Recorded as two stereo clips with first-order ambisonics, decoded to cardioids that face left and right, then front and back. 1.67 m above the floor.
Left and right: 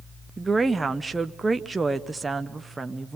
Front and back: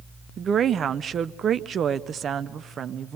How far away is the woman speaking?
About 0.6 m.